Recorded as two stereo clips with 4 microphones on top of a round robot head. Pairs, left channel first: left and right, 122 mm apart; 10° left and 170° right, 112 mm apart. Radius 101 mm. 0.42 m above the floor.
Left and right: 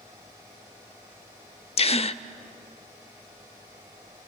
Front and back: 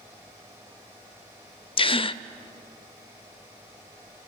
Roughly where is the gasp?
Ahead left.